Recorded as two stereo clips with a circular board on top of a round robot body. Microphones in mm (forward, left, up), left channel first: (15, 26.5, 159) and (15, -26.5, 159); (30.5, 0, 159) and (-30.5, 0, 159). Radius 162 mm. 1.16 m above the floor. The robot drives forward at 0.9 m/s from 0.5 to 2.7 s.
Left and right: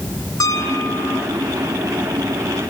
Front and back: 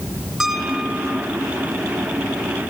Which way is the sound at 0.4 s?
95° left.